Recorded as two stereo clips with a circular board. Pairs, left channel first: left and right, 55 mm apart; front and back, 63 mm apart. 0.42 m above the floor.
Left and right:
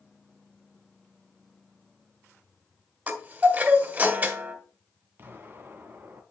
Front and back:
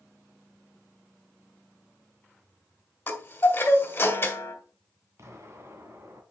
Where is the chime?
45° right, 2 m.